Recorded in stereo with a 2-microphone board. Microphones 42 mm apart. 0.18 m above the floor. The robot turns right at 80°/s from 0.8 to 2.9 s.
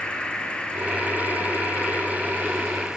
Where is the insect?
25° left, 5.5 m; by 3.0 s 165° right, 5.5 m.